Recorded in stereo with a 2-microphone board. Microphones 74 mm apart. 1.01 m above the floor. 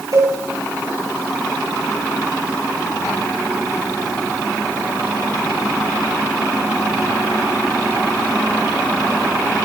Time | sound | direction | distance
0.1 | a cowbell | 65° right (ahead or behind) | 4.5 m